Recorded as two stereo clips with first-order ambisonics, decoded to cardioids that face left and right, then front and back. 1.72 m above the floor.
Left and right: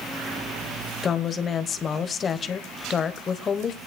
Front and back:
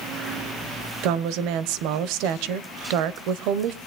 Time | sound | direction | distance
1.0 | a woman speaking | 155° left | 1.0 m